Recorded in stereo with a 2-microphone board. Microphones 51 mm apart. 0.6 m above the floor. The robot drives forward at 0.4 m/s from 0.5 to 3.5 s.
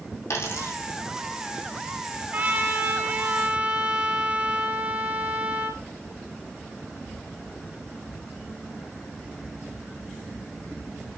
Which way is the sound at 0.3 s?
60° left (ahead or behind).